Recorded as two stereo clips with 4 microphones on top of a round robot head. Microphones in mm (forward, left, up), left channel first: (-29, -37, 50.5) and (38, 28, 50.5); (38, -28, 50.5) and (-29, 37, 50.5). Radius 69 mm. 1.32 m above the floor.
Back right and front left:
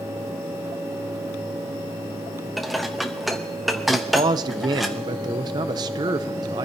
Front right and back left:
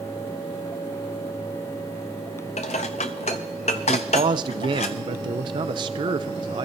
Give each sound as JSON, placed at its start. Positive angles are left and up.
{"t": 2.6, "sound": "dishes clattering", "azimuth_deg": -45, "distance_m": 0.6}
{"t": 3.9, "sound": "a man speaking", "azimuth_deg": 95, "distance_m": 0.6}